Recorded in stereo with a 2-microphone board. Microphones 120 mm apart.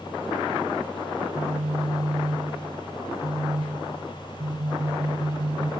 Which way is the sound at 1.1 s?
75° right (ahead or behind).